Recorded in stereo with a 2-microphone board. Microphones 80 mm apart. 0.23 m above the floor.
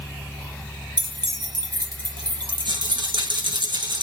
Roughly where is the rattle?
Right.